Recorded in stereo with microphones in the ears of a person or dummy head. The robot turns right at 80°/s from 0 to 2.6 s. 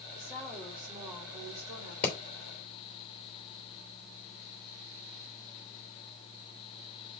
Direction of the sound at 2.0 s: 15° left (ahead or behind).